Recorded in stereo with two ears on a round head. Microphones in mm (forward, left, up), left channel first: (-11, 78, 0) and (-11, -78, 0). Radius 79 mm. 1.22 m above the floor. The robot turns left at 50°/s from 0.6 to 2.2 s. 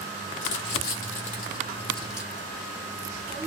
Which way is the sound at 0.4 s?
70° left (ahead or behind).